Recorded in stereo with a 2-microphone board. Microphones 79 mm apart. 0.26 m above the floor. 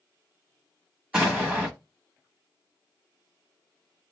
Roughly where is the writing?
No writing in this recording.